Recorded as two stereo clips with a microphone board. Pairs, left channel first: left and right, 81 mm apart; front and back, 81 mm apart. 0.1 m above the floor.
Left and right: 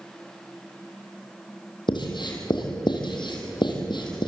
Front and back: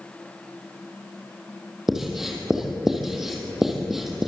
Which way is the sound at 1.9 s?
95° left.